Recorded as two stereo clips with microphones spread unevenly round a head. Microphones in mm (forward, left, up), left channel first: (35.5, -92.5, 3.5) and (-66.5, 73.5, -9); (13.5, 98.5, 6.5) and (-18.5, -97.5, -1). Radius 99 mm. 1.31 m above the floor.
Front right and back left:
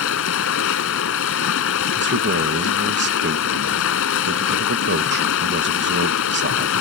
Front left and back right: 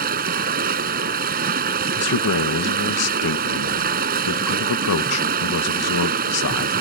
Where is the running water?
55° right.